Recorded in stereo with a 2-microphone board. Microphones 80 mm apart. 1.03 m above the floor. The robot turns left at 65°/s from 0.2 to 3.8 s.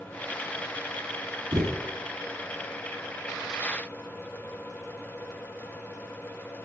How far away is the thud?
About 2.5 m.